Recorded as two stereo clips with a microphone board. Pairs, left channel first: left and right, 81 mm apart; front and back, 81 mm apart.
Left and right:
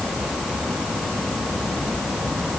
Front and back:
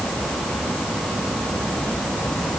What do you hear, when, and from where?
Only background noise.